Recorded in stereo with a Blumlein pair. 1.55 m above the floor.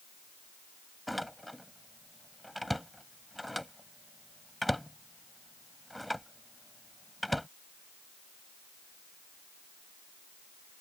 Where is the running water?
No running water in this recording.